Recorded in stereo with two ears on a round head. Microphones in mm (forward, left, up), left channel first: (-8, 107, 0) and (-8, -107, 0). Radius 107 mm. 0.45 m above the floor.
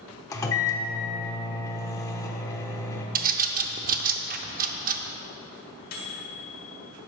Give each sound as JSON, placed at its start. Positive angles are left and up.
{"t": 0.3, "sound": "a microwave", "side_deg": 15, "distance_m": 0.8}
{"t": 3.1, "sound": "a bird", "side_deg": -35, "distance_m": 0.5}
{"t": 5.9, "sound": "a microwave", "side_deg": 40, "distance_m": 1.6}